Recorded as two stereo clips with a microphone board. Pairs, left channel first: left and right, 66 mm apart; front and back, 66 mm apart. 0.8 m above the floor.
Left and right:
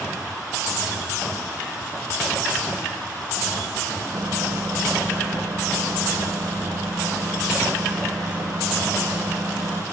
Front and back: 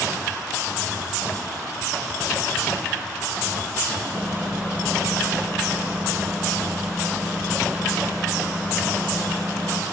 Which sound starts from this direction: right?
A microwave, at 4.1 s.